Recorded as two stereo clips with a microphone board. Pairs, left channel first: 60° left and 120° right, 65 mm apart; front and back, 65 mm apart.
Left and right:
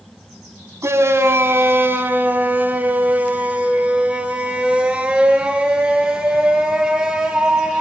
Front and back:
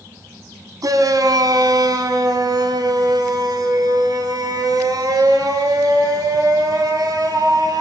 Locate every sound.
0.8 s a shout: 165° right, 3 m; by 7.8 s 155° left, 8 m